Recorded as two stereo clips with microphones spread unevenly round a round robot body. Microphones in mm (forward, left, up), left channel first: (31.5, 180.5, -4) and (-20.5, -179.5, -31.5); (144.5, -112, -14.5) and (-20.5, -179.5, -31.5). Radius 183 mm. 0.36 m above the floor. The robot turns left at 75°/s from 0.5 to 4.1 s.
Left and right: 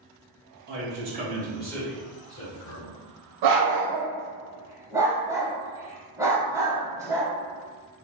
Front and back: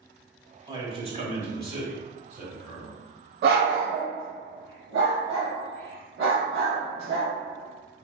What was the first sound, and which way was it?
A man speaking, 110° right.